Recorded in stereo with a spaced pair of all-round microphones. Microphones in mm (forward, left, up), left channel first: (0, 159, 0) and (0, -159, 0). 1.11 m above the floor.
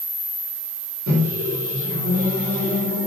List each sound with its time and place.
1.1 s a microwave: 60° right (ahead or behind), 4 m